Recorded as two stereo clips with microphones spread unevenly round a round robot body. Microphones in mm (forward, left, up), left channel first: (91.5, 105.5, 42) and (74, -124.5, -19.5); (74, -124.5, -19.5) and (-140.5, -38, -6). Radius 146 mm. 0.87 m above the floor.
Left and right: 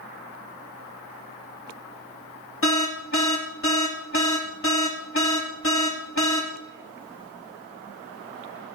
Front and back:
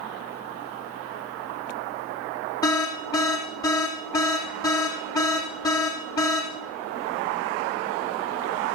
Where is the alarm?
55° left, 3 m.